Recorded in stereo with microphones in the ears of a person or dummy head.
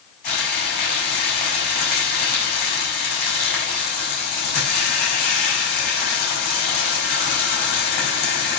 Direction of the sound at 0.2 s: 45° left (ahead or behind).